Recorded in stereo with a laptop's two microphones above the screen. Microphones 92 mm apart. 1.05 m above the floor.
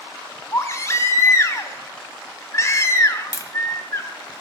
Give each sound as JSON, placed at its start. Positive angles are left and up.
{"t": 0.5, "sound": "a baby crying", "side_deg": 35, "distance_m": 1.4}
{"t": 3.3, "sound": "tapping", "side_deg": 40, "distance_m": 1.0}